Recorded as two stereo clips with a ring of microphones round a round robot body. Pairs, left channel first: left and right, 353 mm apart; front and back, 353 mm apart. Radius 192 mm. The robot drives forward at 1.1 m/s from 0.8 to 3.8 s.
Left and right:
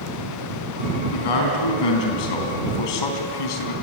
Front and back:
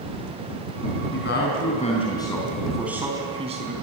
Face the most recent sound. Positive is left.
turn(degrees=110)